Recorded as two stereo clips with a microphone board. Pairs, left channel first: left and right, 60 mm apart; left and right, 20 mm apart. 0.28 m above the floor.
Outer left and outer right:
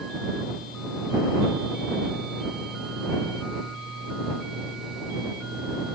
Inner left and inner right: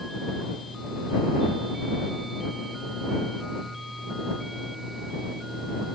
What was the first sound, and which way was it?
Only background noise.